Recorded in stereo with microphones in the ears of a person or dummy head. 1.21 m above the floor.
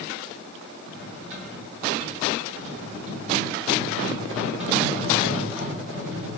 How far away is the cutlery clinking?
About 1.3 m.